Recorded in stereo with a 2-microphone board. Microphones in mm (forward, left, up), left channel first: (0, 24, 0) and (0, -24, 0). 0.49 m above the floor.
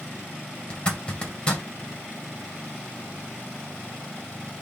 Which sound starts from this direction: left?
A zipper, at 0.7 s.